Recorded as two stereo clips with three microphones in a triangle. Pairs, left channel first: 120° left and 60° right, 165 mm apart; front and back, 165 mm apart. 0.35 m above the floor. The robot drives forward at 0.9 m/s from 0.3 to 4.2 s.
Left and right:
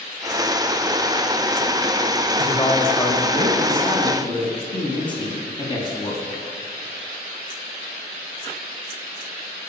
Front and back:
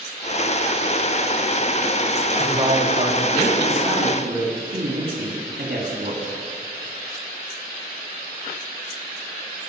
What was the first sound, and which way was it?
A woman speaking, 160° left.